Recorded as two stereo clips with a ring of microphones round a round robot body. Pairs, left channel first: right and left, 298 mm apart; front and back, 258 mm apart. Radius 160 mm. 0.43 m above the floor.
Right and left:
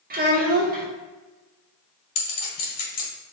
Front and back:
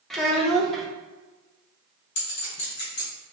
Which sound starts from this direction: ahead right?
A clink, at 2.1 s.